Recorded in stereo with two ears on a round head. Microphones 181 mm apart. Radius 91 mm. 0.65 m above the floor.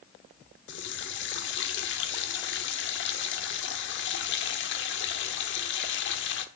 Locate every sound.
0.7 s a running tap: 60° left (ahead or behind), 1.2 m